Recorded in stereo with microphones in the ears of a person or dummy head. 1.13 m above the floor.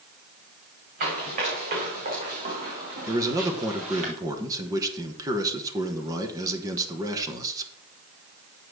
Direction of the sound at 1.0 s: 50° right (ahead or behind).